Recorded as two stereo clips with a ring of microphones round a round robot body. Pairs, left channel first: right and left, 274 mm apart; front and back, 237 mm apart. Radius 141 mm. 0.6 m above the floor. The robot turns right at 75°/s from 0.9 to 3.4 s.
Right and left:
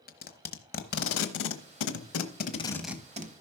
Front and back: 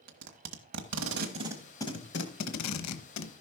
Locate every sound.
0.1 s tape being pulled: 145° right, 1.1 m; by 3.3 s 35° left, 1.1 m